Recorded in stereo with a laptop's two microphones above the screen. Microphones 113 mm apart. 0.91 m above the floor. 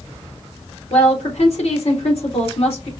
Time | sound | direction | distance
0.9 | a woman speaking | 65° left (ahead or behind) | 2 m